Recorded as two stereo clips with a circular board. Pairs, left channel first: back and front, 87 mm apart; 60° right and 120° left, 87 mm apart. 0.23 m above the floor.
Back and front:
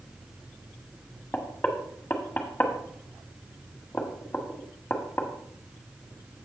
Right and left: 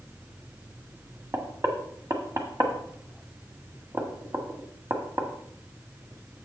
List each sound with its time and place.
1.3 s knocking: 130° left, 1.4 m